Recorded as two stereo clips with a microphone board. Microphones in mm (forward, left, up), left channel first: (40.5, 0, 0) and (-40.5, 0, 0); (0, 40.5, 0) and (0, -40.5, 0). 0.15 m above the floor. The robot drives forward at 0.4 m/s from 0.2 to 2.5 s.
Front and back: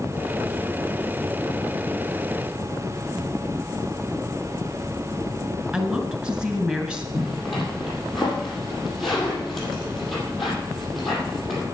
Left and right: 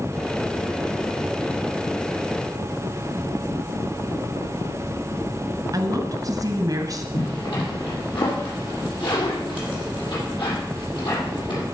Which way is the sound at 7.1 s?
90° left.